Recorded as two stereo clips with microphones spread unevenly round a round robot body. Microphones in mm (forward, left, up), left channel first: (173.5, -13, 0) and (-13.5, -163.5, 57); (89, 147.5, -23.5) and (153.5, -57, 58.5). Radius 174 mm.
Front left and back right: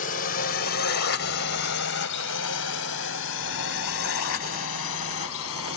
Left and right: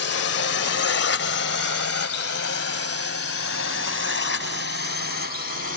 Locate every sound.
0.0 s a drone: 100° left; by 5.8 s 75° left